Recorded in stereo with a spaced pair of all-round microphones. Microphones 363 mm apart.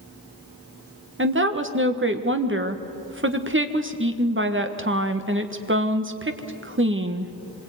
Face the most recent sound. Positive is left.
turn(degrees=-35)  # may be behind; listen again after turning